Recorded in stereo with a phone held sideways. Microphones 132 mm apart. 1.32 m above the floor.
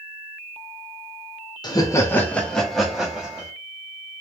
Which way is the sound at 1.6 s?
35° left (ahead or behind).